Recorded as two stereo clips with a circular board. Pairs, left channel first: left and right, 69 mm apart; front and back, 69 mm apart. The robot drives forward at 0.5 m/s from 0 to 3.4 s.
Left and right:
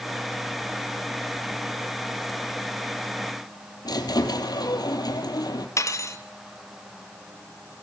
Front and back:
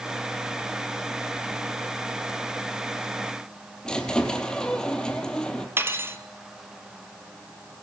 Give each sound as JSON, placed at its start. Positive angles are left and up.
{"t": 3.9, "sound": "a squeak", "azimuth_deg": 80, "distance_m": 2.5}
{"t": 5.8, "sound": "cutlery clinking", "azimuth_deg": 130, "distance_m": 1.5}